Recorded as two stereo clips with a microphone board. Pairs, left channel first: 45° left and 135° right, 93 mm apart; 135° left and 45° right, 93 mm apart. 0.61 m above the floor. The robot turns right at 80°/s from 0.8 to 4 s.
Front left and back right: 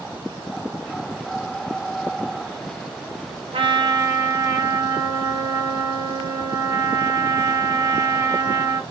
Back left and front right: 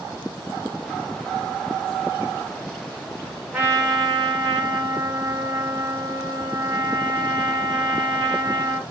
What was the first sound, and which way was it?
A trumpet, 120° right.